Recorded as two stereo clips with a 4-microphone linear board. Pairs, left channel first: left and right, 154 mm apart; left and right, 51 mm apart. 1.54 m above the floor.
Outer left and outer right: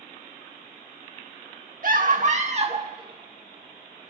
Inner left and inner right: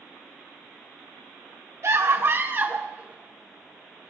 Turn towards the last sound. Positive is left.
turn(degrees=-5)  # may be behind; listen again after turning